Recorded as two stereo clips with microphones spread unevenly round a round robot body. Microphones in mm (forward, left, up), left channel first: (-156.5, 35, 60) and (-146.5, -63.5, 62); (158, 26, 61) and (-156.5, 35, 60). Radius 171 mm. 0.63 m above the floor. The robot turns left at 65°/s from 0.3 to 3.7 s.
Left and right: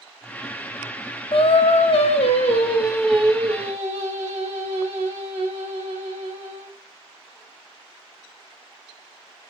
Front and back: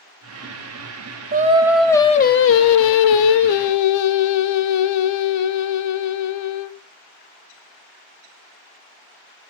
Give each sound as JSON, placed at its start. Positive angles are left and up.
{"t": 1.3, "sound": "singing", "azimuth_deg": 120, "distance_m": 0.5}